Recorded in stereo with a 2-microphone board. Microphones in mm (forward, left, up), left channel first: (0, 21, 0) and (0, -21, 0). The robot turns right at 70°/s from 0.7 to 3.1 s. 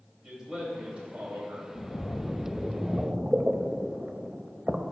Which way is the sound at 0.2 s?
160° right.